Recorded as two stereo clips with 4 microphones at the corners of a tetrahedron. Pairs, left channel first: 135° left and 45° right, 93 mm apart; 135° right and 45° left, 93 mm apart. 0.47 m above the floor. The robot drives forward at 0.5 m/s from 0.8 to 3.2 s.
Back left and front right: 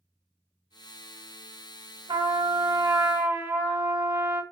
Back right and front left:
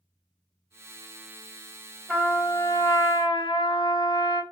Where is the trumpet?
55° right, 0.7 m; by 4.4 s 110° right, 0.6 m.